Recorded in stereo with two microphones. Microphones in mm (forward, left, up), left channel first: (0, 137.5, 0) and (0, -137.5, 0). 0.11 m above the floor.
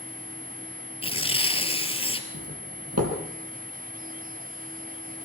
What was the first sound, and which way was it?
Tearing paper, 20° left (ahead or behind).